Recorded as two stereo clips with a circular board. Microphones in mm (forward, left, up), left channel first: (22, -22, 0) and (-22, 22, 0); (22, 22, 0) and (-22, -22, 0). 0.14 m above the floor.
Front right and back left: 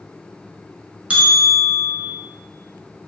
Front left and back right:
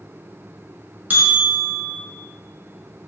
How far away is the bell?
About 0.9 m.